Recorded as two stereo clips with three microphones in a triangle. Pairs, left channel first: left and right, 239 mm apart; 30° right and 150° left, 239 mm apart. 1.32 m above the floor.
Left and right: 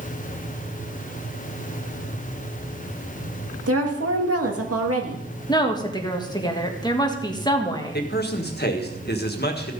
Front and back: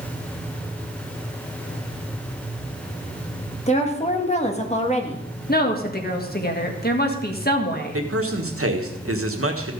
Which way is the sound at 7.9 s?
135° left.